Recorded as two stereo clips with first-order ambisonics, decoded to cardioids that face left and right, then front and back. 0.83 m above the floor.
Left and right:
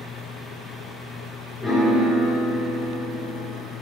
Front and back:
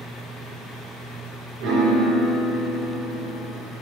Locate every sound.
1.6 s a piano: 175° right, 2.5 m